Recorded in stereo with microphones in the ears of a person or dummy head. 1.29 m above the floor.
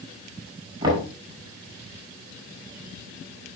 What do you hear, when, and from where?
0.8 s knocking: 25° right (ahead or behind), 5.5 m